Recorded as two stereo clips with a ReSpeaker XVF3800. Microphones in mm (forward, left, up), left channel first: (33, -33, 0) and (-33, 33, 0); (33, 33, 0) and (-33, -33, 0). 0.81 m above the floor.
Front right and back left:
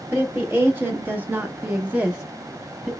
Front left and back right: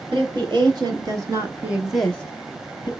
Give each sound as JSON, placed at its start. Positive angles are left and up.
{"t": 0.1, "sound": "a woman speaking", "azimuth_deg": -160, "distance_m": 1.8}